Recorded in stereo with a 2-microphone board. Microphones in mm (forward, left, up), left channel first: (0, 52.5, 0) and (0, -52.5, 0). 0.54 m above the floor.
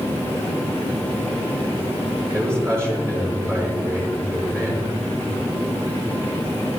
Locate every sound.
2.3 s a man speaking: 25° right (ahead or behind), 8.5 m